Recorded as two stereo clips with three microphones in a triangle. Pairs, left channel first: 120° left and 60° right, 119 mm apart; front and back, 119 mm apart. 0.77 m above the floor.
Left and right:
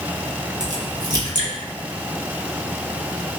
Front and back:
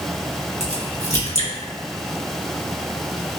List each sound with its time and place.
0.6 s a crack: 10° right, 1.1 m